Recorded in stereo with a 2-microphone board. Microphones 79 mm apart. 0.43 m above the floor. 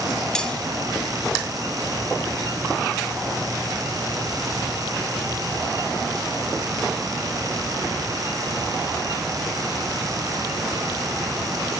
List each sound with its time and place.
0.3 s cutlery clinking: 10° left (ahead or behind), 1.8 m